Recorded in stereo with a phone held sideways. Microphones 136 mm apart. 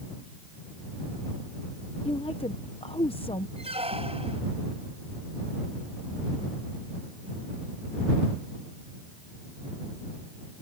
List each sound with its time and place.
2.0 s a woman speaking: 40° left (ahead or behind)
3.6 s a squeak: 45° right (ahead or behind)